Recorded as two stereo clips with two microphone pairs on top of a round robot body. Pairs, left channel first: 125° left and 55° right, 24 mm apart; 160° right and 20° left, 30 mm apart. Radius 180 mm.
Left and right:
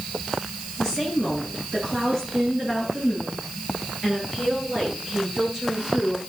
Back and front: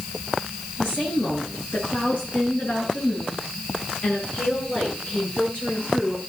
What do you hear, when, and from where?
0.8 s a woman speaking: 135° right, 9.5 m; by 6.2 s 120° right, 10 m